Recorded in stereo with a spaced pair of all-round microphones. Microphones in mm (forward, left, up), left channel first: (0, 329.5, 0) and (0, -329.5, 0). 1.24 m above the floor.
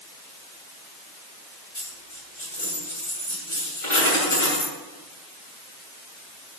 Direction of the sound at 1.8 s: 50° left (ahead or behind).